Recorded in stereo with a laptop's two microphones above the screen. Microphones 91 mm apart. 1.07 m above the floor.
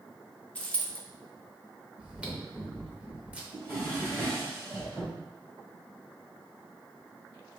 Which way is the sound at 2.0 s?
15° right (ahead or behind).